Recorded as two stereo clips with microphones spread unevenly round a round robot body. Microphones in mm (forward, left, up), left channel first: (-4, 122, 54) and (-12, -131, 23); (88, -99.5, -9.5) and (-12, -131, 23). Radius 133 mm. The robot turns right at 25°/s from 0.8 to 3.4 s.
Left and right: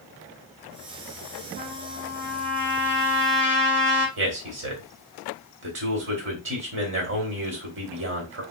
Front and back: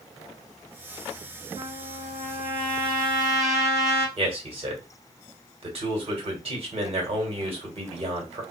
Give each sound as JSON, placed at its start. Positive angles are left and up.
{"t": 1.6, "sound": "a trumpet", "azimuth_deg": -150, "distance_m": 1.4}
{"t": 4.2, "sound": "a man speaking", "azimuth_deg": -125, "distance_m": 1.8}